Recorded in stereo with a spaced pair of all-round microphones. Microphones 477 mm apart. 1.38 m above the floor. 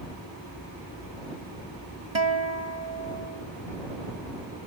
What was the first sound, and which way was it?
A guitar, 70° right (ahead or behind).